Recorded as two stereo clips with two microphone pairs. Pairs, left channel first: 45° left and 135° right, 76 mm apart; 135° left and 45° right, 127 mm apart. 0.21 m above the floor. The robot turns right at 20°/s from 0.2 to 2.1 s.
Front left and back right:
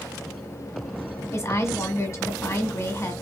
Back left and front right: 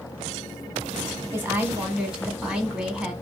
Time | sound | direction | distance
1.3 | a woman speaking | 15° left | 1.5 m